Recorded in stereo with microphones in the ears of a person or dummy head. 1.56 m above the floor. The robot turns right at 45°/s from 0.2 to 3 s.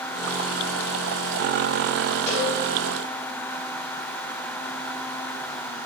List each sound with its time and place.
2.3 s a cowbell: 10° left (ahead or behind), 3 m; by 2.5 s centre (ahead or behind), 3 m